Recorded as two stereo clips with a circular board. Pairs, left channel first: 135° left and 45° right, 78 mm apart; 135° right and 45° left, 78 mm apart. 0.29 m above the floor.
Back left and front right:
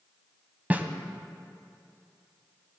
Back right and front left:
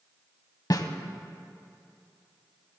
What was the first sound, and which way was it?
A snare drum, 110° right.